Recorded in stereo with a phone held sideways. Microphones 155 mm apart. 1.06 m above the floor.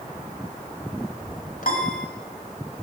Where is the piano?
65° left (ahead or behind), 1.6 m.